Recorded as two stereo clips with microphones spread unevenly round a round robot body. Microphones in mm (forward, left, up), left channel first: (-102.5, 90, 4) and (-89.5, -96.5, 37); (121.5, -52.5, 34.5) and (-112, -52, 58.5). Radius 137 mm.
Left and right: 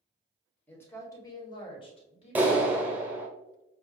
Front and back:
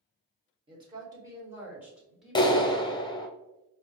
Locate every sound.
0.7 s a woman speaking: 130° left, 1.4 m; by 2.7 s 80° left, 1.8 m
2.4 s a clap: 5° left, 0.8 m